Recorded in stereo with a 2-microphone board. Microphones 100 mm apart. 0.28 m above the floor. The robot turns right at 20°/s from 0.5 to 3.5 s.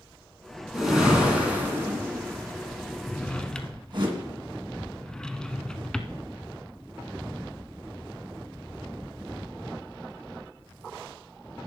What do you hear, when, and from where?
0.7 s a whoosh: centre (ahead or behind), 2.5 m; by 4.1 s 50° right (ahead or behind), 2.5 m
3.1 s a drawer: 15° left (ahead or behind), 0.6 m; by 6.2 s 5° left (ahead or behind), 0.6 m